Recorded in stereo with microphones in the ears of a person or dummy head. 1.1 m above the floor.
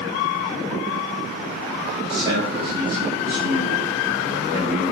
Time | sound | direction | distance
1.9 | a man speaking | 20° right (ahead or behind) | 2.5 m